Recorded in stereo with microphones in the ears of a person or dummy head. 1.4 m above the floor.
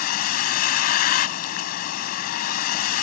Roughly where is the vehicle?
Left.